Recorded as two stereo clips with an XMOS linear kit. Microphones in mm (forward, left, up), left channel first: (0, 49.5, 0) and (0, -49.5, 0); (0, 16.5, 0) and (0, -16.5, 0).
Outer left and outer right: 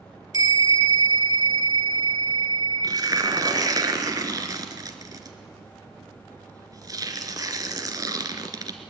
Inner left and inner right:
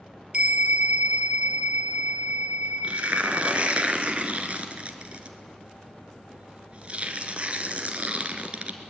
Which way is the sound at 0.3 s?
40° right (ahead or behind).